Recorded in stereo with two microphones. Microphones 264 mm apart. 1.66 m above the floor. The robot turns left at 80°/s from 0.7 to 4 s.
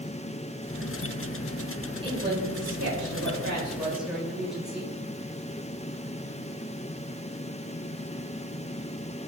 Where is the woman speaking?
20° right, 8 m; by 5.0 s straight behind, 8 m.